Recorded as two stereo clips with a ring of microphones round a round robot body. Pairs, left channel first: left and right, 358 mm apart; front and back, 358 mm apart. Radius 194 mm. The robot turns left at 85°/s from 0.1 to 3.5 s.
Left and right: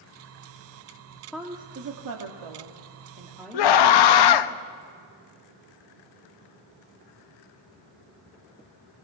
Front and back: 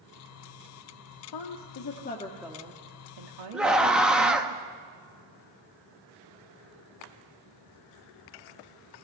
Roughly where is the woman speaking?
Ahead.